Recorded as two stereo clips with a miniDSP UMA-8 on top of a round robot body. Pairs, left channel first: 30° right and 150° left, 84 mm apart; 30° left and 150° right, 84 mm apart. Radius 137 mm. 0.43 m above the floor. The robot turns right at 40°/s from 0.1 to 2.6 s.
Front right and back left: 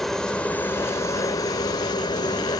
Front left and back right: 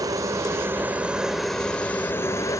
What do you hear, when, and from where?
0.0 s a helicopter: 115° right; by 2.6 s 10° right